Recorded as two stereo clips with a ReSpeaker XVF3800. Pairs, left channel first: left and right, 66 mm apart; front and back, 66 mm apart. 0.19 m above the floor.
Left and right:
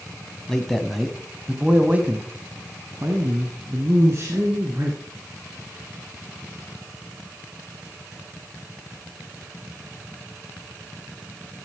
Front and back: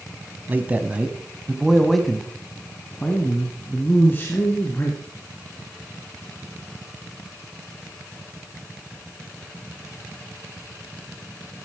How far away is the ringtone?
I don't hear a ringtone.